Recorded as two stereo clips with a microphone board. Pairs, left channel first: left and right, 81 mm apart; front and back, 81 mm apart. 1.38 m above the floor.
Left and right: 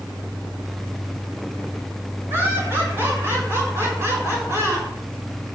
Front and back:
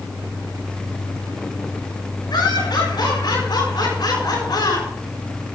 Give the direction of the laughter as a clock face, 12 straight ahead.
1 o'clock.